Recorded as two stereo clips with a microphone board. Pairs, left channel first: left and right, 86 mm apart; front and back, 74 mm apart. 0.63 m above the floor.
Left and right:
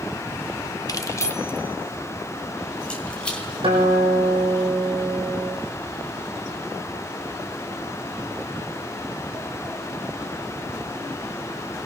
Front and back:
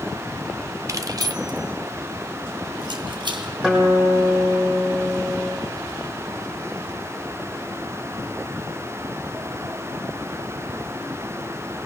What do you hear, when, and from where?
0.9 s keys jangling: 135° left, 0.9 m; by 3.5 s 170° left, 3.5 m
3.6 s a guitar: 100° right, 6 m